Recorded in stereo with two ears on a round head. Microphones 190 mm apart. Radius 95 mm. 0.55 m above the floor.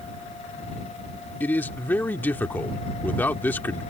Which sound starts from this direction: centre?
A man speaking, at 1.4 s.